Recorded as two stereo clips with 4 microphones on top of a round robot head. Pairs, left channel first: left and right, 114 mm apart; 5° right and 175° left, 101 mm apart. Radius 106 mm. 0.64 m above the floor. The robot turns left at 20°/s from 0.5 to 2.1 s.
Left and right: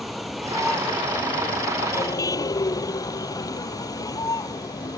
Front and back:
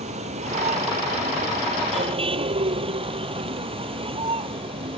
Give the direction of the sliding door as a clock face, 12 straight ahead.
I don't hear a sliding door.